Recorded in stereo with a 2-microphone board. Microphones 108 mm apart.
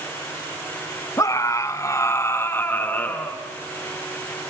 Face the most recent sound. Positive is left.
turn(degrees=15)  # may be behind; listen again after turning